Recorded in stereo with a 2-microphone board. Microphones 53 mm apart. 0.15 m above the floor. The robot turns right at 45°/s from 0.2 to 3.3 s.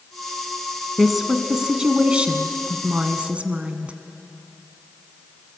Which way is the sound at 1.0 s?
Centre (ahead or behind).